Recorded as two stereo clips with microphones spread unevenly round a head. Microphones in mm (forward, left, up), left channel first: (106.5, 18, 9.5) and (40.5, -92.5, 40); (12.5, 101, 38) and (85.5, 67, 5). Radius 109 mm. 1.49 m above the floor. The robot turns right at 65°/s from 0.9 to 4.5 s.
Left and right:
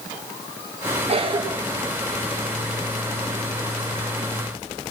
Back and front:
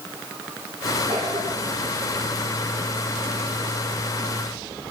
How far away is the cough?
About 1.4 m.